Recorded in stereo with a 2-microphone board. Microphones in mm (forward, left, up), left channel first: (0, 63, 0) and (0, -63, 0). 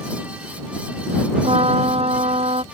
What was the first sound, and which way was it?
A trumpet, 55° right (ahead or behind).